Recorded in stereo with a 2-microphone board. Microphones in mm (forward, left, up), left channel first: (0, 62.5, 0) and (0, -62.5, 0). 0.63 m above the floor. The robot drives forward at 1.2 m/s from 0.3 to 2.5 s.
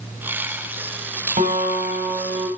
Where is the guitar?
70° right (ahead or behind), 4 m; by 2.5 s 75° right (ahead or behind), 4 m.